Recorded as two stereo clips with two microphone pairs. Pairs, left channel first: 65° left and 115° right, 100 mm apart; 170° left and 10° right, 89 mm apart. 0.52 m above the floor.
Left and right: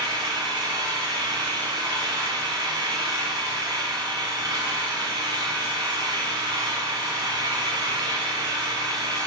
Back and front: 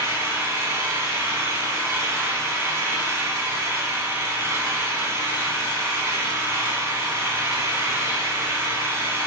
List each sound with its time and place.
0.0 s an engine running: 70° right, 1.5 m